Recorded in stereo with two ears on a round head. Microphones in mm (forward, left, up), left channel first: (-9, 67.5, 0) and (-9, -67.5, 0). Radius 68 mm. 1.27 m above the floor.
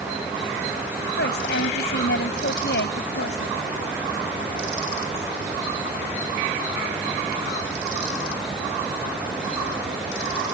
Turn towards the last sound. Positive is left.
turn(degrees=75)  # may be behind; listen again after turning